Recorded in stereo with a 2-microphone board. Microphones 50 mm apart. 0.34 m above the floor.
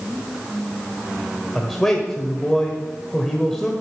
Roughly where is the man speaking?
Centre.